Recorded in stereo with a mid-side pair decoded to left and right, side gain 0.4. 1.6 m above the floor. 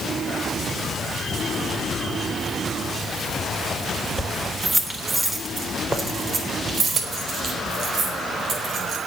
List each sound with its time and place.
4.2 s keys jangling: 5° right, 3 m; by 9.0 s 70° right, 6 m